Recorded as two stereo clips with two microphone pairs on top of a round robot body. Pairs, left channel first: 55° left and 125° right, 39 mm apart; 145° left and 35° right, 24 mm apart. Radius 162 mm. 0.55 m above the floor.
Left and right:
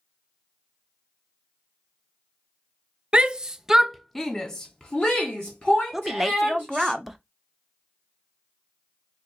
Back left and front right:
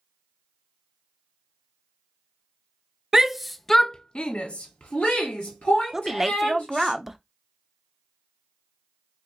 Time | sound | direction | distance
3.1 | a shout | 70° right | 0.7 m
5.9 | a woman speaking | 50° right | 0.8 m